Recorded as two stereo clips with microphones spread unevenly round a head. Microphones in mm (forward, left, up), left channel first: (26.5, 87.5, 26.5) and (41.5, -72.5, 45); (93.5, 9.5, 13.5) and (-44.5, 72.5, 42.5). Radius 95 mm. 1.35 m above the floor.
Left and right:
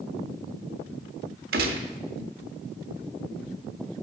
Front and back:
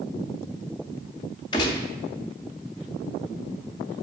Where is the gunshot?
100° right, 0.7 m.